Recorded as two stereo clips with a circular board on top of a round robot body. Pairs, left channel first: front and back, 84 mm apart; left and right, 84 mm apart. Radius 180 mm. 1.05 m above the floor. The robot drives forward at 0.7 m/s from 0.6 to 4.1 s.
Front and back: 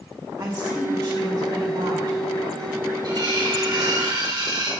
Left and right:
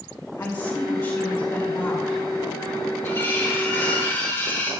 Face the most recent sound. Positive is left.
turn(degrees=150)